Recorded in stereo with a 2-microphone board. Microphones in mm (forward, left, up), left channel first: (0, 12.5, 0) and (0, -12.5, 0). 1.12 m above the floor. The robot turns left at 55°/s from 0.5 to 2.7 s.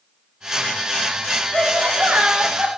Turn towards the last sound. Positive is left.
turn(degrees=-125)